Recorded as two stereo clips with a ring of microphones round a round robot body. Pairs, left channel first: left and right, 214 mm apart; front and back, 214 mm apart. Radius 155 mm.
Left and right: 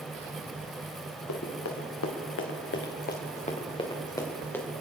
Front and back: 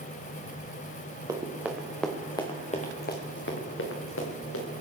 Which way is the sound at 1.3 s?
105° left.